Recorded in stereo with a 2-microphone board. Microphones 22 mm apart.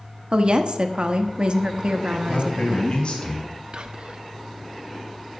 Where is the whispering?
45° right (ahead or behind), 0.8 m.